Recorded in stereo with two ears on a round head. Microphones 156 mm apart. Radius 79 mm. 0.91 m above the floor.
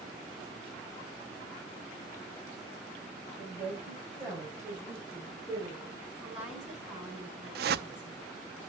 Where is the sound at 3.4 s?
10° right (ahead or behind), 6.5 m; by 6.0 s 20° right (ahead or behind), 4 m.